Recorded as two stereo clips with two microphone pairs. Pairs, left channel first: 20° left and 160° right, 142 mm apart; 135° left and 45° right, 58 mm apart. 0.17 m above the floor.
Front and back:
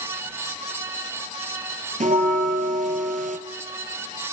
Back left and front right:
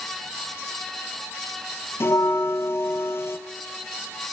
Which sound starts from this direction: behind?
A bell, at 2.0 s.